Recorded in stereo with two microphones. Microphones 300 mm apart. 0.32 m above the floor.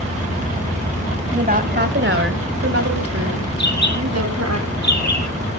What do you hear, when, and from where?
1.3 s a woman speaking: 30° right (ahead or behind), 1.9 m; by 4.6 s 65° right (ahead or behind), 3 m
3.6 s a bird: 75° left (ahead or behind), 4.5 m